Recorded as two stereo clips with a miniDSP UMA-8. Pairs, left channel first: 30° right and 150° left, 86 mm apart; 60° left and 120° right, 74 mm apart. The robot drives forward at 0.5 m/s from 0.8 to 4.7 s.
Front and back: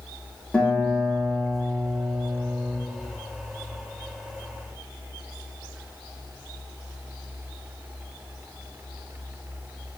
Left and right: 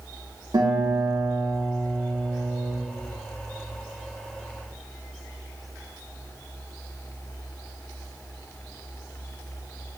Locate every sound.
0.5 s a guitar: 110° right, 1.1 m; by 2.7 s 145° right, 1.7 m